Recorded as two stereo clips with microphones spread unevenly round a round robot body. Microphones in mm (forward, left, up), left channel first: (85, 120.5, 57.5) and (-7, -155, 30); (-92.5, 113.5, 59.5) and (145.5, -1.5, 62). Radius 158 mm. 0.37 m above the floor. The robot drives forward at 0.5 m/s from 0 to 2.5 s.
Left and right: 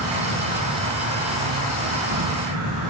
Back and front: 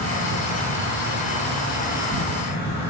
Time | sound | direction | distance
0.0 | an insect | 90° right | 6 m